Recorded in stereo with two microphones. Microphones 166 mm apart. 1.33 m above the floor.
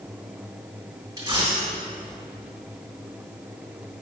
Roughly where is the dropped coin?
Right.